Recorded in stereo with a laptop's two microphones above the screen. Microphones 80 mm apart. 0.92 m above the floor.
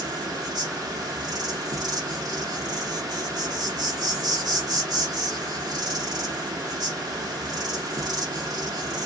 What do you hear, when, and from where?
0.0 s an insect: 50° right (ahead or behind), 0.7 m